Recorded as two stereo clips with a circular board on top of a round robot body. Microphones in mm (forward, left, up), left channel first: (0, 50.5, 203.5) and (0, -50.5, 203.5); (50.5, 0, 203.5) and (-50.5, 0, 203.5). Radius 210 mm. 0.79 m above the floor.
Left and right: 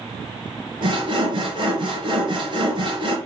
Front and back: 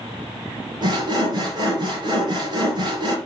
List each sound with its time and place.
0.8 s sawing: 135° right, 4 m